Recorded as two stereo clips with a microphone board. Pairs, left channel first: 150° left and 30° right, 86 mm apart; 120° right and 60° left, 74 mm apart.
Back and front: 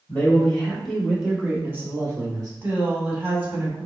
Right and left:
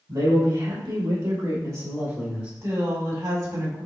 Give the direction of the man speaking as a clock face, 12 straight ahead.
9 o'clock.